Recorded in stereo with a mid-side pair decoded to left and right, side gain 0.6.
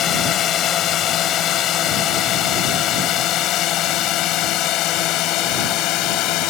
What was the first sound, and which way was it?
A drone, 50° left.